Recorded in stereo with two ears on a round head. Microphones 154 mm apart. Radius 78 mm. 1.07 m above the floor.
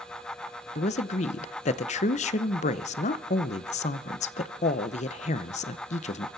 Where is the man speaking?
45° left (ahead or behind), 0.8 m.